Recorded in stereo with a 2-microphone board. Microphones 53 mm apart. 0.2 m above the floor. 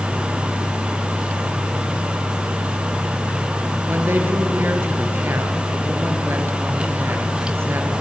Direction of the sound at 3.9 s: 45° right (ahead or behind).